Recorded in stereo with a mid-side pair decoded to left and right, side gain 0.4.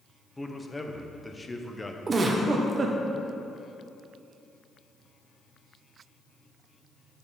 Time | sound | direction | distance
0.4 | a man speaking | 20° left | 1.0 m
2.1 | a giggle | 40° right | 1.0 m